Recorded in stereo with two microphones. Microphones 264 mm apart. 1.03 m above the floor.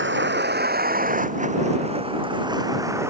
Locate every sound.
0.0 s a vehicle: 45° right (ahead or behind); by 3.1 s 10° right (ahead or behind)